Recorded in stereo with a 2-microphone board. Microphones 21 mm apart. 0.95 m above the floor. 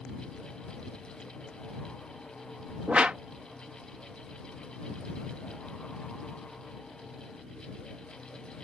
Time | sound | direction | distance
2.9 | a whoosh | 65° right (ahead or behind) | ?